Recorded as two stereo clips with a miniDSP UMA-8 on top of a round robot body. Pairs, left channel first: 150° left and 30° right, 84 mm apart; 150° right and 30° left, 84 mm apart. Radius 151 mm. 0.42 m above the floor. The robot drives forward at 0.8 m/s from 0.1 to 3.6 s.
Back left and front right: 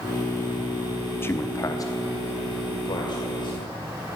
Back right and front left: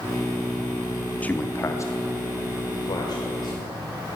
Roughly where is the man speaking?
Behind.